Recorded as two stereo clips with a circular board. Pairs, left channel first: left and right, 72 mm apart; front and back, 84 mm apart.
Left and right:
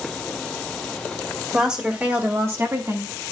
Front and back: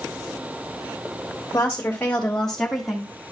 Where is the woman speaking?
20° right, 1.4 m; by 3.1 s 95° right, 1.7 m.